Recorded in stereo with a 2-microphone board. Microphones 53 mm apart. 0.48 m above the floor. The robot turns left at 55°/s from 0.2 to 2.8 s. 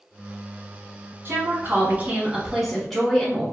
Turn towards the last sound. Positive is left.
turn(degrees=180)